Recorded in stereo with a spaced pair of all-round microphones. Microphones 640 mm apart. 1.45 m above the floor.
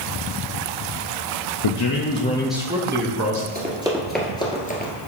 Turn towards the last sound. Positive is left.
turn(degrees=15)  # may be behind; listen again after turning